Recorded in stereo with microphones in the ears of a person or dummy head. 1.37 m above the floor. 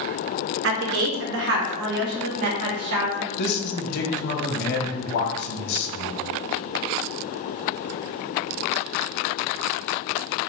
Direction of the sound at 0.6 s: 65° right (ahead or behind).